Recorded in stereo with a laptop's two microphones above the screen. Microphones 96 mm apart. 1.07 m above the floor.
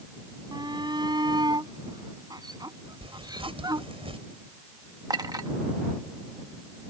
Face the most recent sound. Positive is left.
turn(degrees=-45)  # may be behind; listen again after turning